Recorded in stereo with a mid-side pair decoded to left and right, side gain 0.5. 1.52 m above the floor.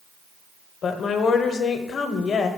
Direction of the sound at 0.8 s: 50° left.